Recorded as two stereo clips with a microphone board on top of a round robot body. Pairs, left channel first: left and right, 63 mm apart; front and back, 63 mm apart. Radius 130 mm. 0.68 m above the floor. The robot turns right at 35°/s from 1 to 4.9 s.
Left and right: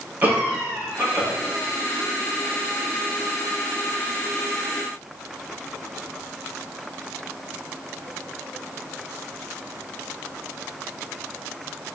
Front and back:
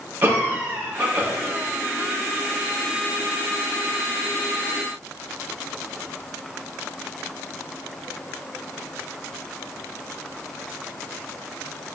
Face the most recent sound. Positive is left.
turn(degrees=-5)